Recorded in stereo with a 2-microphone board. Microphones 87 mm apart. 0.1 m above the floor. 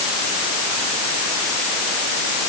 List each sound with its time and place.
Only background noise.